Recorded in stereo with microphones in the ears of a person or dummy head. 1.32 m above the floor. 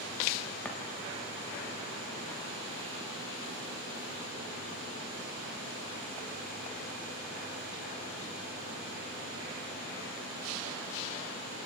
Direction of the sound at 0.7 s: 10° left (ahead or behind).